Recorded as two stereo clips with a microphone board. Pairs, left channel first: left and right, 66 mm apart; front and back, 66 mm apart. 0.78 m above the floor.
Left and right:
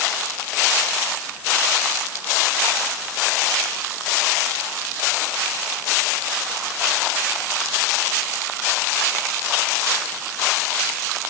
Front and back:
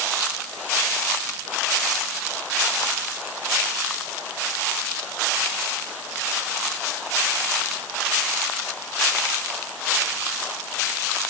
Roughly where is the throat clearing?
I don't hear throat clearing.